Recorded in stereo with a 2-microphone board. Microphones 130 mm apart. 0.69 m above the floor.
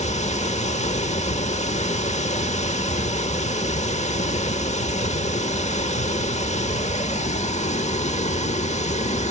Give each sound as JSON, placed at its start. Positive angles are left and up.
{"t": 0.0, "sound": "running water", "side_deg": 60, "distance_m": 0.9}